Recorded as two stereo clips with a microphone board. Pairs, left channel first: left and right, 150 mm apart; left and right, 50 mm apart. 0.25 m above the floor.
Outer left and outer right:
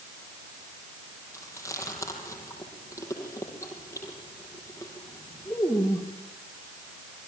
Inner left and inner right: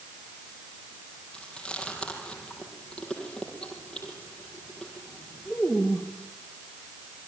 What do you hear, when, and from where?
1.3 s chewing: 20° left (ahead or behind), 6.5 m